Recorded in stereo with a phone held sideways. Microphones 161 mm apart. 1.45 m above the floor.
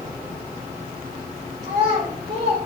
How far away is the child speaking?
About 4.5 m.